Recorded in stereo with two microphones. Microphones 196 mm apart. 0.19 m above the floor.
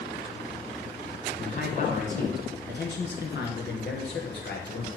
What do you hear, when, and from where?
1.4 s a man speaking: 40° left (ahead or behind), 1.7 m; by 4.9 s 70° left (ahead or behind), 3.5 m